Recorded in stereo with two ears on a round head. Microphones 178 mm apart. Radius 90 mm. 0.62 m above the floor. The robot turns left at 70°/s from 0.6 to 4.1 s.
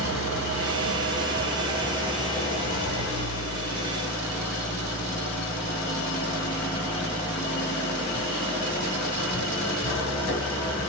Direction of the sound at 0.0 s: 70° right.